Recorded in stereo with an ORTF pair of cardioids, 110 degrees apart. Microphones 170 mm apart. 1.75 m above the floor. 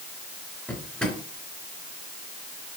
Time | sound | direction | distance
0.7 | a drawer | 5° left | 3.5 m